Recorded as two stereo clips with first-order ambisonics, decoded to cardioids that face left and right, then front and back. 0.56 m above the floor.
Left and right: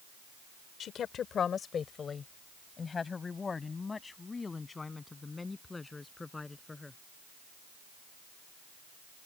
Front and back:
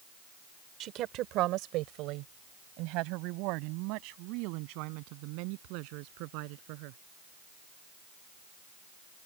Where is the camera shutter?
No camera shutter in this recording.